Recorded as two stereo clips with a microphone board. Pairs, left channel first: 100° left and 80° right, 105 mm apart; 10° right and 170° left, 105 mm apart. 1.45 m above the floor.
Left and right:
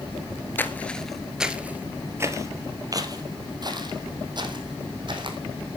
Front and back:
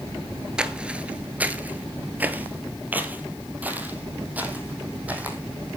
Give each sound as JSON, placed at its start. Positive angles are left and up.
{"t": 0.6, "sound": "footsteps", "azimuth_deg": 105, "distance_m": 1.4}